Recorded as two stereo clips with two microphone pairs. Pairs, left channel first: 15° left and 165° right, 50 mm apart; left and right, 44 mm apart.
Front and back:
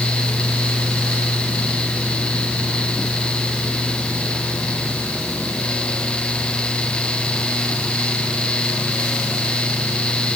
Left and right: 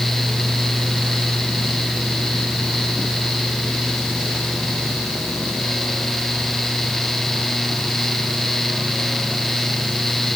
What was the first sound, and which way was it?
Only background noise.